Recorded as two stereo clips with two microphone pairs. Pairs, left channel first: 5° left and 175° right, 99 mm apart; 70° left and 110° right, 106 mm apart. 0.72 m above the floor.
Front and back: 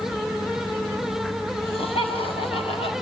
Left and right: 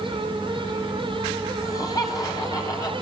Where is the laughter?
15° left, 6 m; by 2.9 s 20° left, 5 m.